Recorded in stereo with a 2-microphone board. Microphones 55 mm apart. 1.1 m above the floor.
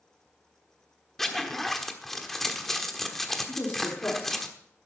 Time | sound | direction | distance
1.2 | a zipper | 5° left (ahead or behind) | 1.2 m
3.5 | a woman speaking | 45° left (ahead or behind) | 2.5 m